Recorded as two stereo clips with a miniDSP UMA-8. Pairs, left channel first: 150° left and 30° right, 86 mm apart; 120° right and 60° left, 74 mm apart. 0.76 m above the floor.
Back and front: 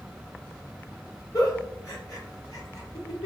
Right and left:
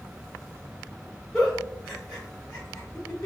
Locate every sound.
1.3 s a giggle: 160° left, 1.3 m